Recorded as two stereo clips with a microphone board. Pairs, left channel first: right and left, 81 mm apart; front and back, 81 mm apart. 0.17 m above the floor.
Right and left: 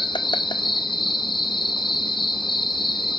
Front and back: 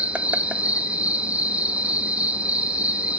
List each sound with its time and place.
0.0 s an insect: 105° right, 0.9 m